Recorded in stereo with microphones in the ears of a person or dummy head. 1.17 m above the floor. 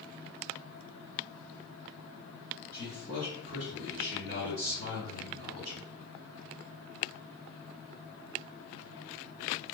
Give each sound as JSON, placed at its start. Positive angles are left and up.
{"t": 2.7, "sound": "a man speaking", "side_deg": -20, "distance_m": 1.2}